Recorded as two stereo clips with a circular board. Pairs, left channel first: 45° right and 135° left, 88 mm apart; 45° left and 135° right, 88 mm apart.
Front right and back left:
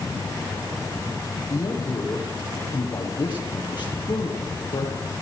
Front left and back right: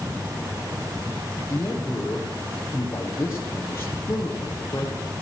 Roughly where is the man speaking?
Ahead.